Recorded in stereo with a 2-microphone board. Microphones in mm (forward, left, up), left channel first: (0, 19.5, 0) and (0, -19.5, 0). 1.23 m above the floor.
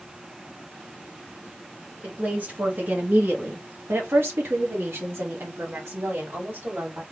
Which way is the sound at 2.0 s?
45° right (ahead or behind).